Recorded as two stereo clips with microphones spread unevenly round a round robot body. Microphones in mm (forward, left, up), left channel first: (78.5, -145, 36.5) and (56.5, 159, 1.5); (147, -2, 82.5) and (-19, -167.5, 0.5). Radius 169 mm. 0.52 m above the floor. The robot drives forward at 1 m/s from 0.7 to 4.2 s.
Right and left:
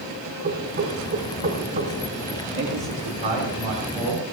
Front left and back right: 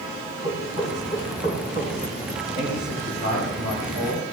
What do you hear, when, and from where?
0.4 s knocking: 155° left, 4 m; by 1.9 s 160° left, 5 m
2.5 s a man speaking: 165° left, 4 m; by 4.2 s 170° left, 5.5 m